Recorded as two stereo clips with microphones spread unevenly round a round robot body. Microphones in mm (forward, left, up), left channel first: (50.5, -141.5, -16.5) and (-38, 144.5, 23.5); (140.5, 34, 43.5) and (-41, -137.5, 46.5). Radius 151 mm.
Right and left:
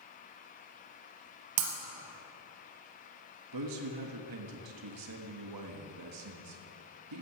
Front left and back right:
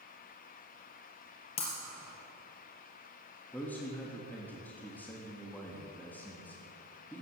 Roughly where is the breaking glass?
Behind left.